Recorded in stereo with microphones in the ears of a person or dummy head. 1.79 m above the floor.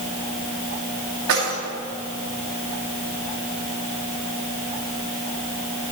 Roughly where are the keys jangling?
Right.